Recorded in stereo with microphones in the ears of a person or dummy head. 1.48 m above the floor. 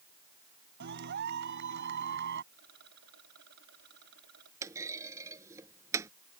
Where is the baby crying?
No baby crying in this recording.